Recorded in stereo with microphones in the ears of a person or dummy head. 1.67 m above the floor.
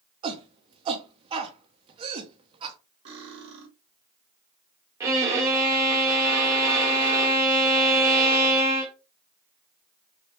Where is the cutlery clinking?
30° right (ahead or behind), 1.1 m.